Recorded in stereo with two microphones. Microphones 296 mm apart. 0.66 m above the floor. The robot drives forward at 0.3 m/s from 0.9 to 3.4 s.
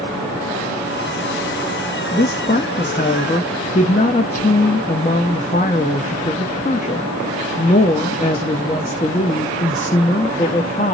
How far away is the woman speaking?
About 0.6 m.